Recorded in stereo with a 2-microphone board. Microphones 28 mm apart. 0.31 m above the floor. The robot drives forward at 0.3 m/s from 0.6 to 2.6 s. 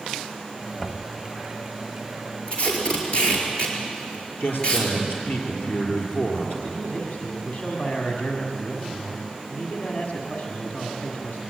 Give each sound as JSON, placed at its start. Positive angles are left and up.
{"t": 0.8, "sound": "knocking", "side_deg": 40, "distance_m": 1.5}
{"t": 2.5, "sound": "tape being pulled", "side_deg": 35, "distance_m": 5.0}
{"t": 4.4, "sound": "a man speaking", "side_deg": 75, "distance_m": 6.0}
{"t": 6.6, "sound": "a man speaking", "side_deg": 50, "distance_m": 1.9}